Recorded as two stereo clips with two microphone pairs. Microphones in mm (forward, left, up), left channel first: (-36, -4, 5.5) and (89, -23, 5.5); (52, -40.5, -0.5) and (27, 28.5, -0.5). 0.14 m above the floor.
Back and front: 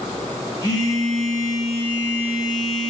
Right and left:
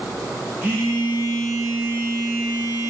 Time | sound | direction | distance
0.6 | a phone buzzing | 145° left | 1.1 m